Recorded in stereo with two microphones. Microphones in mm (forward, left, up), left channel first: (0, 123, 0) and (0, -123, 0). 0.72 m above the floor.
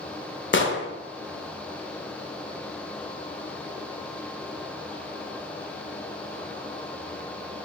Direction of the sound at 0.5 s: 50° left (ahead or behind).